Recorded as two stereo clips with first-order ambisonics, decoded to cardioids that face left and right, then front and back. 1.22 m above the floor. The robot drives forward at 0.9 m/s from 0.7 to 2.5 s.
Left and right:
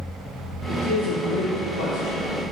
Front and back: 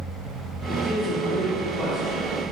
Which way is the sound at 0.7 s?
65° left.